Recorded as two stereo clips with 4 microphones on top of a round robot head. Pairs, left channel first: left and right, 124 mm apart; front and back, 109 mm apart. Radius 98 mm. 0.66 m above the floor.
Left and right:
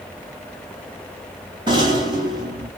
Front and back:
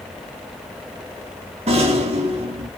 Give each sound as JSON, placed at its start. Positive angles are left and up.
{"t": 1.7, "sound": "a rattle", "azimuth_deg": -140, "distance_m": 2.0}